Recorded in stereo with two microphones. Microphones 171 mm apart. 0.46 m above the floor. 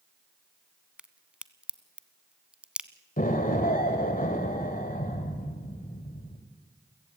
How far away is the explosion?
About 2 m.